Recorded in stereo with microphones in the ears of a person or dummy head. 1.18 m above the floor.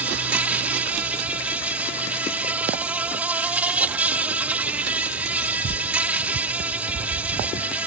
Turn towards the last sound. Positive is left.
turn(degrees=-10)  # may be behind; listen again after turning